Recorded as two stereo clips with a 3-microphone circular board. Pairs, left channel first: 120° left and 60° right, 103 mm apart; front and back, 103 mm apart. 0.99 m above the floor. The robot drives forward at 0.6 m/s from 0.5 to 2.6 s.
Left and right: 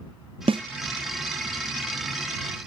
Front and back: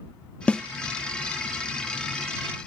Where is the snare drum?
80° right, 0.6 m; by 0.6 s 85° right, 0.6 m.